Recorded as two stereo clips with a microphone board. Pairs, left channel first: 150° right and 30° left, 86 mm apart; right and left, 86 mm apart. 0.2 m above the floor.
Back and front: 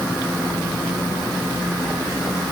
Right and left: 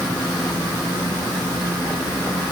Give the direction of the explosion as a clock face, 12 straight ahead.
No explosion in this recording.